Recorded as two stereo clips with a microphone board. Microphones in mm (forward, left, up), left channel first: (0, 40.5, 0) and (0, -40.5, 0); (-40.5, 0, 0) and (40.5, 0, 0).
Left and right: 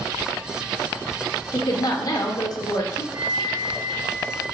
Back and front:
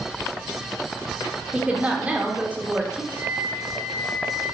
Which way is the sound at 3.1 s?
140° left.